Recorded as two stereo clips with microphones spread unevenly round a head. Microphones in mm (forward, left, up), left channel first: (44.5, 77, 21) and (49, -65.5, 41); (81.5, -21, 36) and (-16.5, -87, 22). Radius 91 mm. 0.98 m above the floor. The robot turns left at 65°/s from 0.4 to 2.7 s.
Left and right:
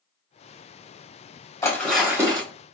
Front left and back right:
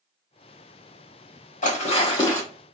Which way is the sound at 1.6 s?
20° left.